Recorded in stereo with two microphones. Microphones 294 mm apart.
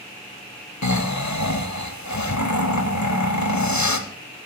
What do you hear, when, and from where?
0.8 s snoring: 80° left, 0.7 m